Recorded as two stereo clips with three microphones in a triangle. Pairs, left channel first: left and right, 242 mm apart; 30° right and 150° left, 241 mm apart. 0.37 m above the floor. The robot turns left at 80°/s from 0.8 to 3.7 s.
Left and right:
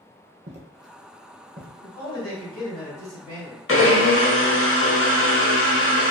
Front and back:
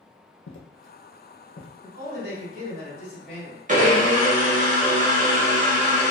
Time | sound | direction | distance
0.5 | footsteps | 35° right | 0.6 m
1.8 | a man speaking | 170° left | 1.8 m
3.7 | a blender | 100° left | 0.6 m